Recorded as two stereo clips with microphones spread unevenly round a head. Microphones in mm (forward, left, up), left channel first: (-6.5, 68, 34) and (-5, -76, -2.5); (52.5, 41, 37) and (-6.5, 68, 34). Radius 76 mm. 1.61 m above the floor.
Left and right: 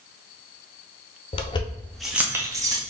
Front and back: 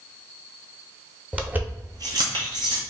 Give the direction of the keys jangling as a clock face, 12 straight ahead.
9 o'clock.